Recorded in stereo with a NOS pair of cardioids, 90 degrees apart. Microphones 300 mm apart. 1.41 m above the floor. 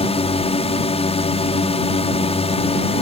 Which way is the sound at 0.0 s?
20° left.